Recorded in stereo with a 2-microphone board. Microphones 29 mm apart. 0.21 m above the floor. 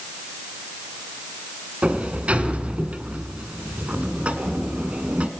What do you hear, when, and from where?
1.8 s a sliding door: 45° right (ahead or behind), 1.5 m